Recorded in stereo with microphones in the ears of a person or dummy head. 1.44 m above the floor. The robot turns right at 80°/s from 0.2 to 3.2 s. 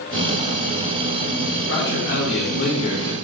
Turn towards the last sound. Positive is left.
turn(degrees=180)